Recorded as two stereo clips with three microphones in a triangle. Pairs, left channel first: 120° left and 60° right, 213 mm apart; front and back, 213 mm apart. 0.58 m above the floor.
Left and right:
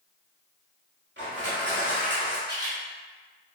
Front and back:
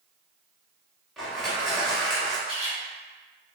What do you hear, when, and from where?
1.2 s crushing: 90° right, 1.3 m
2.5 s a camera shutter: 125° right, 1.8 m